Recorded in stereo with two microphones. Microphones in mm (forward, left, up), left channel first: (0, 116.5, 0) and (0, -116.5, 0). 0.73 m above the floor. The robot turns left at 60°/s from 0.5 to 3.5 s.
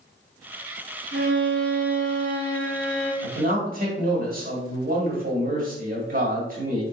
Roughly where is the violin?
Ahead right.